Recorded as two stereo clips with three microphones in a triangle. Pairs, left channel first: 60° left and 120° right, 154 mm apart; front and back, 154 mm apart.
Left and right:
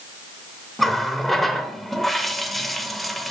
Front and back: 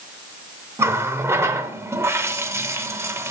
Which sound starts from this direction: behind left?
A running tap, at 0.8 s.